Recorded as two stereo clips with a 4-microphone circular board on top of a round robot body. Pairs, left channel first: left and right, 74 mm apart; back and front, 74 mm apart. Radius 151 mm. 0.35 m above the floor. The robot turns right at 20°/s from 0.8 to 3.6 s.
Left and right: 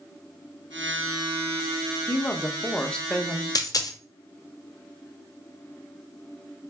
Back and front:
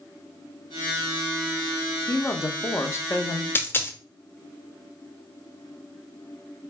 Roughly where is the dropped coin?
Behind left.